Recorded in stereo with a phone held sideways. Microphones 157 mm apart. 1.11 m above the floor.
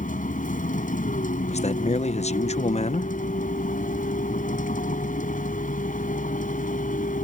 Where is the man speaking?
45° left (ahead or behind).